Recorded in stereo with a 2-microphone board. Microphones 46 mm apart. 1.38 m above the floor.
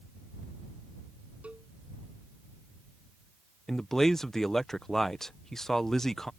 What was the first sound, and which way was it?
A cowbell, 30° right (ahead or behind).